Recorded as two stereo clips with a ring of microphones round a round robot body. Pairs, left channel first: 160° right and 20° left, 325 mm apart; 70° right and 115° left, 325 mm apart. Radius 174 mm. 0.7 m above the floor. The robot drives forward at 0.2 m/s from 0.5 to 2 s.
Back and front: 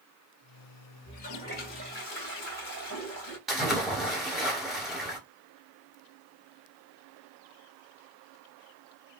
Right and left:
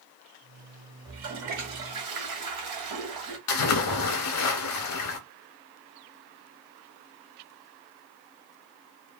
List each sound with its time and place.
1.1 s a toilet flushing: 140° left, 1.7 m
3.5 s a splash: 65° right, 1.1 m